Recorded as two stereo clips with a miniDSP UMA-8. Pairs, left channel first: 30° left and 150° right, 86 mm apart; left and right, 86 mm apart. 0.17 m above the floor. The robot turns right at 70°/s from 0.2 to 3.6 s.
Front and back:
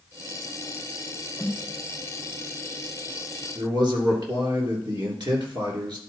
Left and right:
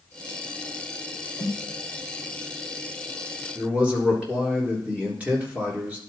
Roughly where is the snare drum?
Behind left.